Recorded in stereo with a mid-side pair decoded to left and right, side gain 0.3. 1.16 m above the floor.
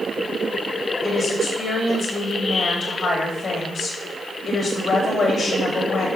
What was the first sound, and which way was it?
A woman speaking, 55° left.